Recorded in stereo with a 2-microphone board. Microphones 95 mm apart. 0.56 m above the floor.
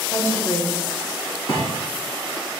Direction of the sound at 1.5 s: 60° left (ahead or behind).